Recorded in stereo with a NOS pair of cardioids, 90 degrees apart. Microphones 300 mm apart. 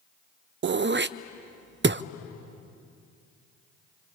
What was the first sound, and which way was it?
Throat clearing, 40° right.